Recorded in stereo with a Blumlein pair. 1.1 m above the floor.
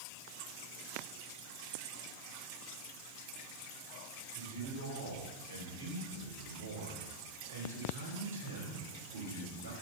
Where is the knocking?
I don't hear knocking.